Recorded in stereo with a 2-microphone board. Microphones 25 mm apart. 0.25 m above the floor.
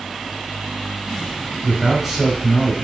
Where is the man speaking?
5° right (ahead or behind), 1.1 m.